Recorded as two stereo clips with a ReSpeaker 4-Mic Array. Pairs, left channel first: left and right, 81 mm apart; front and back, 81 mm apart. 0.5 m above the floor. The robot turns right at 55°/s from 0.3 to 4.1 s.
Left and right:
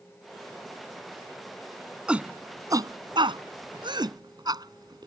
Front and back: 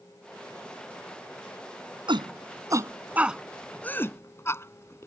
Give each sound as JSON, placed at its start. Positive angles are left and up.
{"t": 2.1, "sound": "a shout", "azimuth_deg": -170}